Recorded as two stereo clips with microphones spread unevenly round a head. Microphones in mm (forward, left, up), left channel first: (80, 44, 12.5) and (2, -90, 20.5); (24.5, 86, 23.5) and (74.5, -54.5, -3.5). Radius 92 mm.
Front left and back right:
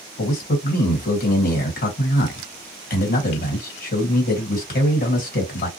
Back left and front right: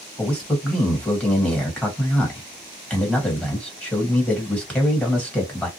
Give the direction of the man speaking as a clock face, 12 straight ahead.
11 o'clock.